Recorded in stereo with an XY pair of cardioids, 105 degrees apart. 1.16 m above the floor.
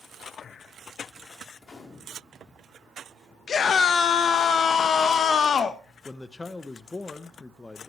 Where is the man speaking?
25° left, 0.8 m.